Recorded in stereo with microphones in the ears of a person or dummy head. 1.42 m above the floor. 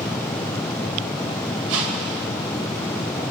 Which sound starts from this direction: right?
A whoosh, at 1.7 s.